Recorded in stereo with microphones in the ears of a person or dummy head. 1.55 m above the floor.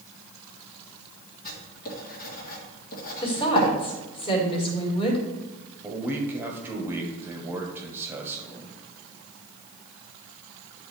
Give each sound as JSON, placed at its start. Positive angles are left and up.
{"t": 1.4, "sound": "writing", "side_deg": 50, "distance_m": 1.6}
{"t": 3.2, "sound": "a woman speaking", "side_deg": 30, "distance_m": 1.9}
{"t": 5.8, "sound": "a man speaking", "side_deg": -10, "distance_m": 1.1}